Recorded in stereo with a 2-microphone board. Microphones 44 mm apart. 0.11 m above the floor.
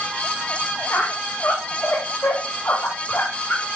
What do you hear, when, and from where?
0.9 s a squeak: 50° left (ahead or behind), 3 m